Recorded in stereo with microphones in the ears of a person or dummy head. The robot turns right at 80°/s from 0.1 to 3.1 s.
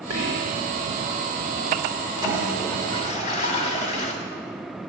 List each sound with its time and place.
0.1 s whispering: 100° right, 4 m; by 0.6 s 65° right, 4 m
2.2 s a toilet flushing: 25° right, 1.7 m; by 4.1 s 45° left, 1.7 m